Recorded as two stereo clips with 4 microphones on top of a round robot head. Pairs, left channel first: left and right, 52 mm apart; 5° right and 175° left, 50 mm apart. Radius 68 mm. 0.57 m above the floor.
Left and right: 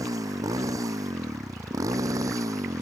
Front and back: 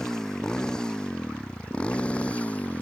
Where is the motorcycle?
85° right; by 2.8 s 70° right.